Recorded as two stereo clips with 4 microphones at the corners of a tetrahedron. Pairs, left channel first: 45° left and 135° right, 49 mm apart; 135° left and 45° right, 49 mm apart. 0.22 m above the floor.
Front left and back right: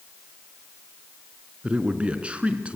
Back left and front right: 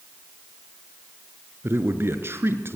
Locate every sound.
1.6 s a man speaking: 75° right, 3 m